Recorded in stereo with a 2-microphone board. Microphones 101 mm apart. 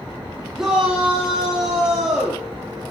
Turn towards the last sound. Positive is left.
turn(degrees=-5)  # may be behind; listen again after turning